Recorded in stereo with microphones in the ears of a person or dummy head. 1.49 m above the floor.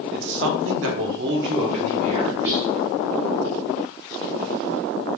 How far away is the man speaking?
About 0.7 m.